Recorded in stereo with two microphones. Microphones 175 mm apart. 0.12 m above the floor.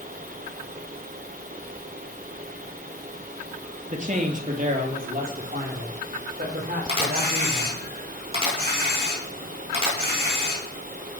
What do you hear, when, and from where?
3.9 s a man speaking: 45° right (ahead or behind), 2.5 m; by 7.8 s 60° right (ahead or behind), 7 m
6.9 s a camera shutter: 35° right (ahead or behind), 7 m